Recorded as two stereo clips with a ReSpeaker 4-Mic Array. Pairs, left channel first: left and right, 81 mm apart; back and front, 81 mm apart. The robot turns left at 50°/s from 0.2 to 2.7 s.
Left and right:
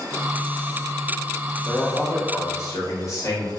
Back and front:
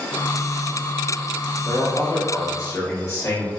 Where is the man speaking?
175° right, 1.5 m; by 3.5 s 135° left, 1.5 m.